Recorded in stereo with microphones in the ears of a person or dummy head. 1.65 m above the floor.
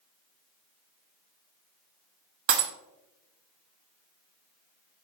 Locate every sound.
2.5 s breaking glass: 60° right (ahead or behind), 1.6 m